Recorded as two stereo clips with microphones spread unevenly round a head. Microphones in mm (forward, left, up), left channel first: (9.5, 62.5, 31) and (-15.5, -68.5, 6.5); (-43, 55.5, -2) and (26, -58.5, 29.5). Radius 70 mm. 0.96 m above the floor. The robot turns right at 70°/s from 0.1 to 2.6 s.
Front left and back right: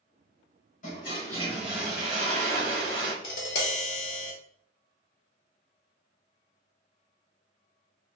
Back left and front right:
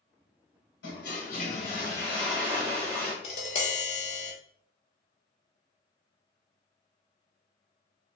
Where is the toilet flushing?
115° left, 1.4 m; by 3.1 s 120° right, 1.4 m.